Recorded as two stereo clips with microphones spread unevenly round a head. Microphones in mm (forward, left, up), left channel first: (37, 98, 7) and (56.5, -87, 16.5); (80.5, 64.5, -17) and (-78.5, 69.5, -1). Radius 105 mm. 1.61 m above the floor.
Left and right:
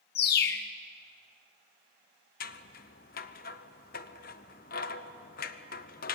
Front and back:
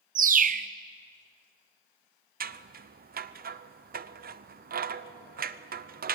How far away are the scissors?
About 0.8 m.